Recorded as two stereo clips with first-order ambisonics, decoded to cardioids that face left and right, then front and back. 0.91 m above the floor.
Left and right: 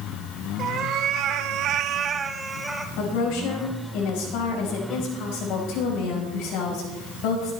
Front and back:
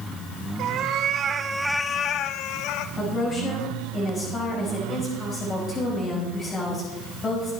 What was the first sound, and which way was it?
A cat meowing, 145° right.